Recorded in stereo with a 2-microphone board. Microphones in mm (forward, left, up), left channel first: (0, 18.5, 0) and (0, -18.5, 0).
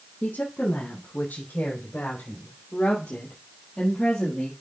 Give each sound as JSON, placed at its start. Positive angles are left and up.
{"t": 0.2, "sound": "a woman speaking", "side_deg": 55, "distance_m": 4.0}